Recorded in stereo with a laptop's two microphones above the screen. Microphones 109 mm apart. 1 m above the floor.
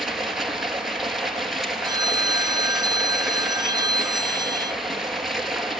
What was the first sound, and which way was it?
Running water, 5° right (ahead or behind).